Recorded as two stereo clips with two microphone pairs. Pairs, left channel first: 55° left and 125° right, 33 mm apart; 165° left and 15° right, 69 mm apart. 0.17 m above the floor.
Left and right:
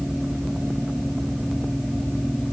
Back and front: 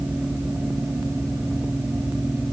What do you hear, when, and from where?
Only background noise.